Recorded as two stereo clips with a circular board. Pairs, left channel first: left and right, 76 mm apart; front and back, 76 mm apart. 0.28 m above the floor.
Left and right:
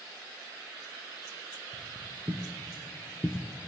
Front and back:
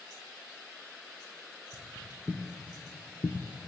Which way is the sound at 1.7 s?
70° right.